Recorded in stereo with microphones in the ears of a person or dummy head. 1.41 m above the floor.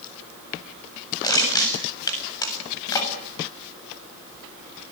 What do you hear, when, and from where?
1.2 s crushing: 10° left (ahead or behind), 7.5 m